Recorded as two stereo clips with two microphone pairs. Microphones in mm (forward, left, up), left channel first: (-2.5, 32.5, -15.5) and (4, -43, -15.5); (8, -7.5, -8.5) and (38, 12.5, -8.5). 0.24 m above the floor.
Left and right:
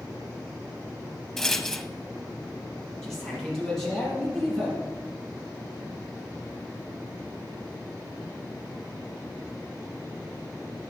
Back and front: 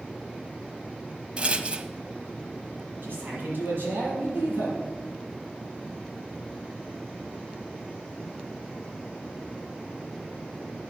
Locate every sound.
1.4 s a rattle: 15° left, 0.7 m
3.0 s a man speaking: 10° left, 6 m